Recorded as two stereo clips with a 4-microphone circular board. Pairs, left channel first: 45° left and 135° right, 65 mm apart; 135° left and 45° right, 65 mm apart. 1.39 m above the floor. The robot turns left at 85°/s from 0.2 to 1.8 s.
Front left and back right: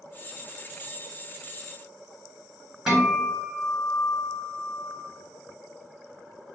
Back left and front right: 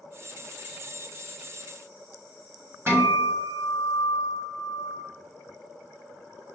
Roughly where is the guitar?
Ahead right.